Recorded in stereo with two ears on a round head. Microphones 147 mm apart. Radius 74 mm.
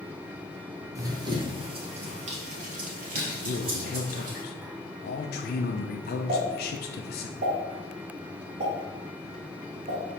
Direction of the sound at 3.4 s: 65° left (ahead or behind).